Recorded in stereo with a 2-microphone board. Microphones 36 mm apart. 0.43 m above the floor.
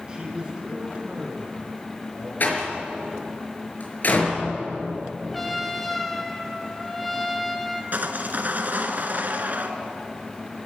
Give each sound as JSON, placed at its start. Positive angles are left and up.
{"t": 0.1, "sound": "a man speaking", "side_deg": -20, "distance_m": 5.5}
{"t": 2.4, "sound": "a door slam", "side_deg": 55, "distance_m": 5.0}
{"t": 5.3, "sound": "a trumpet", "side_deg": 5, "distance_m": 2.0}
{"t": 7.9, "sound": "sawing", "side_deg": -55, "distance_m": 1.8}